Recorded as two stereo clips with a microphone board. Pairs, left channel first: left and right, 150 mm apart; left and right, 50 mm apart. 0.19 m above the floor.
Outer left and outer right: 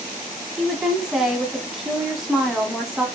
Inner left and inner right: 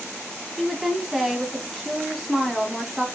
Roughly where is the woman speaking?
Centre.